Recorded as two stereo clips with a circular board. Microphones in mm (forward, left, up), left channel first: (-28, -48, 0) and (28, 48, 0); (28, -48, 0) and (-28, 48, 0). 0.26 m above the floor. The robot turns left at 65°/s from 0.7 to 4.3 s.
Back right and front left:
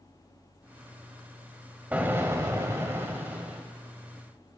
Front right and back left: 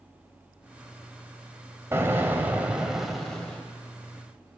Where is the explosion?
110° left, 1.4 m; by 3.6 s straight ahead, 1.4 m.